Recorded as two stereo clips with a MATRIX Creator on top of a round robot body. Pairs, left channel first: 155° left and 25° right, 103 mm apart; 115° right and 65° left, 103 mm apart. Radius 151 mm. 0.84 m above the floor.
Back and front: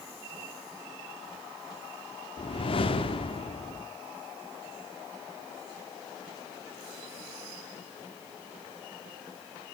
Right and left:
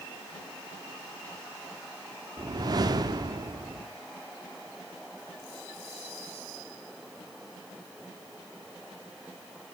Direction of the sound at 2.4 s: 120° left.